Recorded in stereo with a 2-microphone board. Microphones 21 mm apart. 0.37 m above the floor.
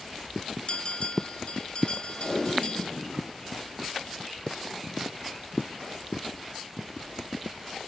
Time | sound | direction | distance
0.7 | a bell | 50° left (ahead or behind) | 0.9 m
2.2 | tape being pulled | 30° left (ahead or behind) | 3 m